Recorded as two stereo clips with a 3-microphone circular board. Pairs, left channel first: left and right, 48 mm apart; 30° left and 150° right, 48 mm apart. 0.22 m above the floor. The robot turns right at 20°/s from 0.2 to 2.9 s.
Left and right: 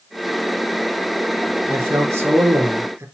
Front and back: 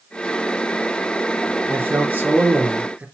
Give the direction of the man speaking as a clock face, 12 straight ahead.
4 o'clock.